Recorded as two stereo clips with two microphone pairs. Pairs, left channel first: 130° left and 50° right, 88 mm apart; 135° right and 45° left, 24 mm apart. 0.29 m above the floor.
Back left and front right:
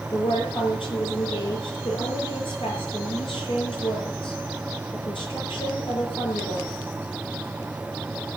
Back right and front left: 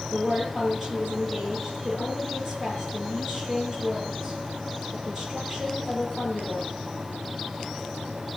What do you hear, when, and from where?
0.1 s a woman speaking: 115° left, 8.5 m